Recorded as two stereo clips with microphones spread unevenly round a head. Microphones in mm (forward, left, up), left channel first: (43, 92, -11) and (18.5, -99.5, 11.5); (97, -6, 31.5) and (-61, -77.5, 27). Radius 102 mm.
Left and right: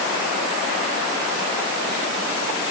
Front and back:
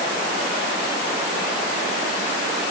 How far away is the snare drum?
No snare drum in this recording.